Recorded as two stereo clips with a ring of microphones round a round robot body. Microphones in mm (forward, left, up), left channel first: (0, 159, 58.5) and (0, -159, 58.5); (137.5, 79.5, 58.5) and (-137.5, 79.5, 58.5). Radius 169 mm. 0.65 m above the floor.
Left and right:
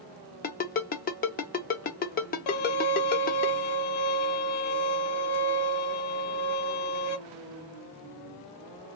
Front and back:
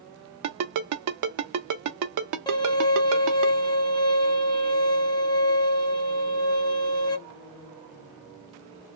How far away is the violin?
About 0.8 m.